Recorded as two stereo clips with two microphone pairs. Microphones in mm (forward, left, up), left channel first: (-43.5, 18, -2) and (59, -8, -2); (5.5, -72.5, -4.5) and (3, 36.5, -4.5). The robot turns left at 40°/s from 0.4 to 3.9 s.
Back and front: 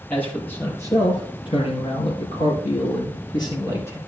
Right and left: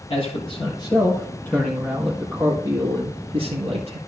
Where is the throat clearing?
No throat clearing in this recording.